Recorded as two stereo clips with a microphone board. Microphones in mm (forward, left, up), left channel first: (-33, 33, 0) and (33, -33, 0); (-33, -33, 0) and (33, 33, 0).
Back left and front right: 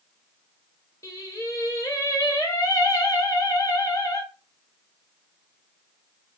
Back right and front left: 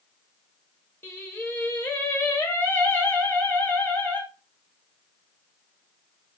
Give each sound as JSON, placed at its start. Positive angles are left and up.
{"t": 1.0, "sound": "singing", "azimuth_deg": 170, "distance_m": 1.0}